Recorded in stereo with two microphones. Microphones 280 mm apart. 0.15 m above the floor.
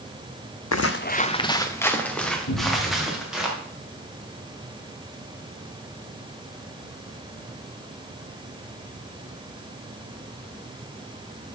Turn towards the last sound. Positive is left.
turn(degrees=65)  # may be behind; listen again after turning